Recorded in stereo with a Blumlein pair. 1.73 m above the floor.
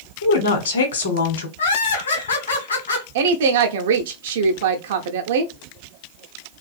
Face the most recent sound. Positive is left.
turn(degrees=-55)